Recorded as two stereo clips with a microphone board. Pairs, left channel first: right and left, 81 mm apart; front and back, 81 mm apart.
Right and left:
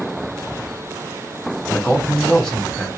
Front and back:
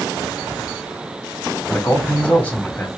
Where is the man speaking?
15° right, 1.4 m.